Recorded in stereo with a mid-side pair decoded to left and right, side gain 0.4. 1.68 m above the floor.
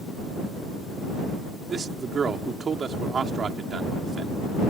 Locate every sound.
1.7 s a man speaking: 50° right